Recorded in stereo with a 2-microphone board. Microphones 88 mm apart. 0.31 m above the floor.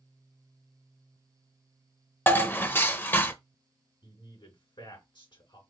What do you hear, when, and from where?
2.3 s dishes clattering: 25° left (ahead or behind), 0.6 m
4.0 s a man speaking: 60° left (ahead or behind), 3.5 m